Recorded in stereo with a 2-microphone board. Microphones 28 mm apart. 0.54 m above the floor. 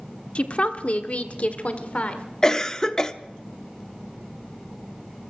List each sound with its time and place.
0.3 s a woman speaking: 40° left (ahead or behind), 1.2 m; by 2.2 s 45° left (ahead or behind), 1.7 m
2.4 s a cough: 20° left (ahead or behind), 0.7 m